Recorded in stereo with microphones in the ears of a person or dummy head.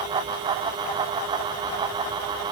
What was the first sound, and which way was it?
Only background noise.